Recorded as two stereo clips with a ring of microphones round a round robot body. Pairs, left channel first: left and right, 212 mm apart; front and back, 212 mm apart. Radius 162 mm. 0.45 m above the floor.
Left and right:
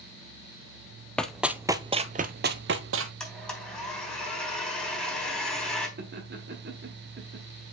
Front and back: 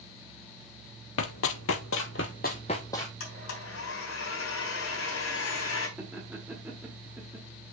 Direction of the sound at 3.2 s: 5° left.